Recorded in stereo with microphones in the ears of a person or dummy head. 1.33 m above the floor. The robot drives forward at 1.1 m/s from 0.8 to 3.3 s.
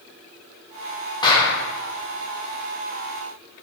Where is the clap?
25° left (ahead or behind), 2 m; by 1.6 s 20° left (ahead or behind), 2.5 m.